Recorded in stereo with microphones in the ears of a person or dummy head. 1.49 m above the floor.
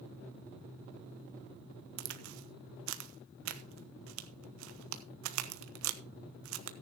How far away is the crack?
About 1.0 m.